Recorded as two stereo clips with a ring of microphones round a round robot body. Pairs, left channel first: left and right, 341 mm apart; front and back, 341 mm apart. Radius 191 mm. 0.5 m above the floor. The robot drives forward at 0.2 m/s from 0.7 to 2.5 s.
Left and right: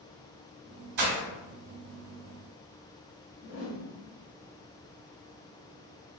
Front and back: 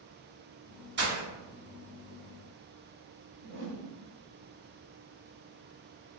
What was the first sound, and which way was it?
Breaking glass, 120° right.